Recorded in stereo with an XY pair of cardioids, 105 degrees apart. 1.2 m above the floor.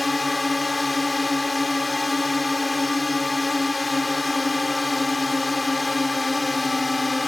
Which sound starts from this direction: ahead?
A drone, at 0.0 s.